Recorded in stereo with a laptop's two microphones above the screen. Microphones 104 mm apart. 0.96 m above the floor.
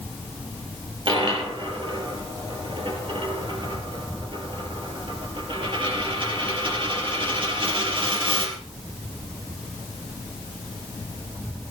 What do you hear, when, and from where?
1.1 s a dropped coin: 55° right (ahead or behind), 4 m